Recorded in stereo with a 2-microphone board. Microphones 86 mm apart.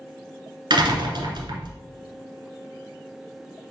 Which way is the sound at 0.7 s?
55° right (ahead or behind).